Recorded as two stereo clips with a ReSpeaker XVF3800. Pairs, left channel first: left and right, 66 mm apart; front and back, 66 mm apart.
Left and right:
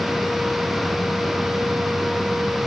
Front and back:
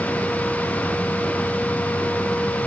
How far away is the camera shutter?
I don't hear a camera shutter.